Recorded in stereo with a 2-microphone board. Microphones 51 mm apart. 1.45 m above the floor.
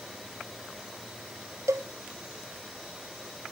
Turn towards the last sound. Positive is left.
turn(degrees=-70)  # may be behind; listen again after turning